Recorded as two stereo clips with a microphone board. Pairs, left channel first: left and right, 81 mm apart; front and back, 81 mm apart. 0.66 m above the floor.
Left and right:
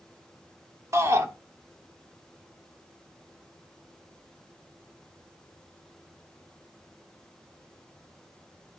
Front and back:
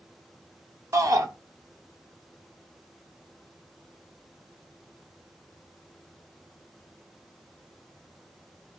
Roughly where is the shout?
Behind right.